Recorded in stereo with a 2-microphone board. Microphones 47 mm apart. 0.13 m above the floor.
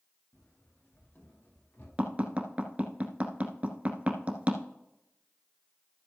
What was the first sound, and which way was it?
Running footsteps, 45° left (ahead or behind).